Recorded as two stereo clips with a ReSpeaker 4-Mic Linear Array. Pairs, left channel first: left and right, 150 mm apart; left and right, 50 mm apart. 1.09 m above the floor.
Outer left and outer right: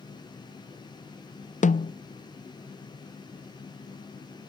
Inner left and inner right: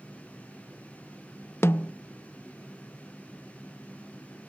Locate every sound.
1.6 s a snare drum: 55° left (ahead or behind)